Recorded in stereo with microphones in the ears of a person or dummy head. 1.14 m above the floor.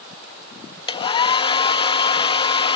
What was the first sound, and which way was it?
A hair dryer, 30° left (ahead or behind).